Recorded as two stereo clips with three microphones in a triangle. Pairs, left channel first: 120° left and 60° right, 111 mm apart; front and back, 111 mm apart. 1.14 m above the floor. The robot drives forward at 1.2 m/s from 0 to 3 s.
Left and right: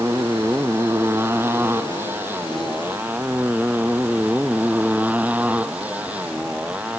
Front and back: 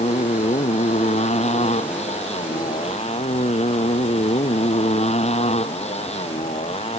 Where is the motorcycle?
10° left; by 7.0 s 20° left.